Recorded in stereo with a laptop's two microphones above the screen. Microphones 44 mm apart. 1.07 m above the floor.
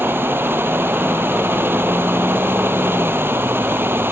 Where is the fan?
55° right (ahead or behind).